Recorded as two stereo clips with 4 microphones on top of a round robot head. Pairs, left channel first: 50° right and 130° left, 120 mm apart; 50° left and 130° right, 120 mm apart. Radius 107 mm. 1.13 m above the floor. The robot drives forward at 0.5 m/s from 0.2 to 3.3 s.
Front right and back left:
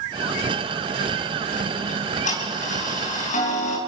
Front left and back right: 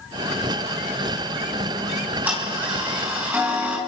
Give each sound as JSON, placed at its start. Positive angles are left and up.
{"t": 1.9, "sound": "ticking", "azimuth_deg": -55, "distance_m": 8.0}